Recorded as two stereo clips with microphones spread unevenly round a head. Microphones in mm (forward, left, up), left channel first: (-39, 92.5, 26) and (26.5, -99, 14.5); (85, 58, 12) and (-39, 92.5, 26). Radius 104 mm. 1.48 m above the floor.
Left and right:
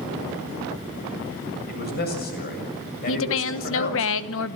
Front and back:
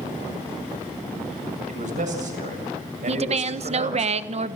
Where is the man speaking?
150° left, 7.5 m.